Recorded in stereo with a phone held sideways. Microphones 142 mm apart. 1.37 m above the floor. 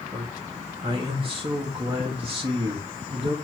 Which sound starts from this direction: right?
A man speaking, at 0.1 s.